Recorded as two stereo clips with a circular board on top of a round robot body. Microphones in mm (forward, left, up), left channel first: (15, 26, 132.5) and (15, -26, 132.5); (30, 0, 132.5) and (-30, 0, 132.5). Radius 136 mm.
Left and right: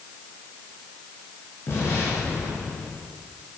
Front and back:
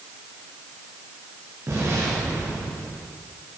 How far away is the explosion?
About 8 m.